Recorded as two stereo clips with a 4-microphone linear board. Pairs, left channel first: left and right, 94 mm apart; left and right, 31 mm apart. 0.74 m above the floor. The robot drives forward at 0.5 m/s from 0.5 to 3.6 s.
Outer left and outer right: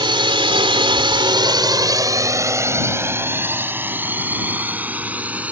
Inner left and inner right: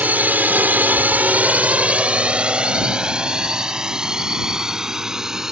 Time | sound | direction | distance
0.0 | a drone | 60° right (ahead or behind) | ?